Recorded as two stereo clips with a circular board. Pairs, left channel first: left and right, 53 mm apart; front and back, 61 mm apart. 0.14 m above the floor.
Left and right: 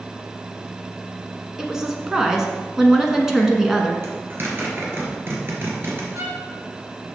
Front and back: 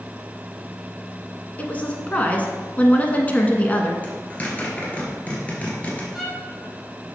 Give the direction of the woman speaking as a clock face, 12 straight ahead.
1 o'clock.